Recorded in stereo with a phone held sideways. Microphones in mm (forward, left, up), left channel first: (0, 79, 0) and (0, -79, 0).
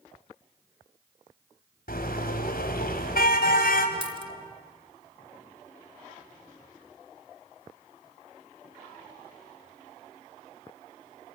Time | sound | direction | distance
1.9 | a car horn | 80° left | 3 m
4.0 | a dropped coin | 35° right (ahead or behind) | 1.4 m